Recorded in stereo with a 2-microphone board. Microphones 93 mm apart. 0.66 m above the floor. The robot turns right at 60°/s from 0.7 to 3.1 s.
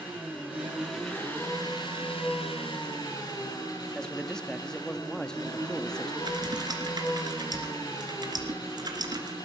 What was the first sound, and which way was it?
An engine running, 15° right.